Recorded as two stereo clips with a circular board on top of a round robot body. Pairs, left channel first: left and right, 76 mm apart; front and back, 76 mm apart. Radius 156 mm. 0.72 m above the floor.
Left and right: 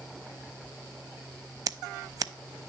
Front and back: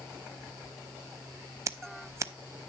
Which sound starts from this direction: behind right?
Scissors, at 1.7 s.